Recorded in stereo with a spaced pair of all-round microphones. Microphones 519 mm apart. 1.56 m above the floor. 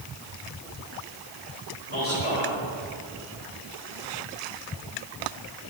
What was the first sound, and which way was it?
A man speaking, 85° left.